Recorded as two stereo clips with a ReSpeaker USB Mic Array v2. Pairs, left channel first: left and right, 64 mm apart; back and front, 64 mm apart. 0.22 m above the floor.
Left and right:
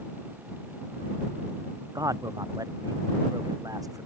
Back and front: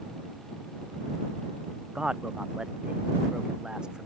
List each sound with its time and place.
1.9 s a man speaking: 80° right